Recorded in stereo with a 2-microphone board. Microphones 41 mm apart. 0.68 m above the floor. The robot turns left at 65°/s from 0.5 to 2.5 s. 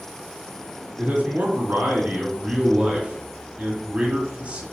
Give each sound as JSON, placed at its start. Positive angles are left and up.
{"t": 1.0, "sound": "a man speaking", "azimuth_deg": -40, "distance_m": 1.5}